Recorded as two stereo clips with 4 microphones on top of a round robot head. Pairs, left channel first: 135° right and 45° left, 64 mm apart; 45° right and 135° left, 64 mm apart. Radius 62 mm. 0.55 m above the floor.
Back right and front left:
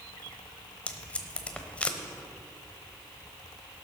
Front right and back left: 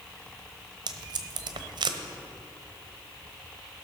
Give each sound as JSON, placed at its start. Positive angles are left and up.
{"t": 0.9, "sound": "tape being pulled", "azimuth_deg": 150, "distance_m": 0.9}